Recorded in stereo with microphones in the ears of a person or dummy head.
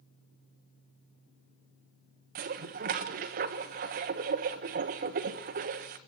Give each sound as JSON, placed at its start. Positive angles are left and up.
{"t": 2.4, "sound": "dishes clattering", "side_deg": -40, "distance_m": 1.1}